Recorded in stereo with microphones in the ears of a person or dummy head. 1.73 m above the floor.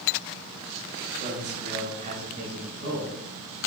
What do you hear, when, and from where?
1.2 s a man speaking: 40° right (ahead or behind), 4.5 m; by 3.7 s 55° right (ahead or behind), 5 m